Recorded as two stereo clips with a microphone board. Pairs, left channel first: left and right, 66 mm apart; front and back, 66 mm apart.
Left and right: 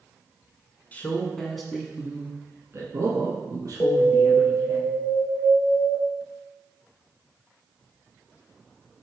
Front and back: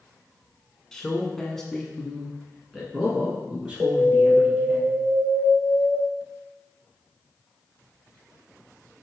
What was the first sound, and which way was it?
A man speaking, 75° left.